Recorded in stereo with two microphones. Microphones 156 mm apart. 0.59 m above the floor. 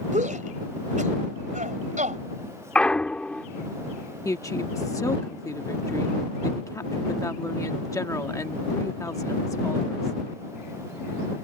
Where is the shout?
50° right (ahead or behind).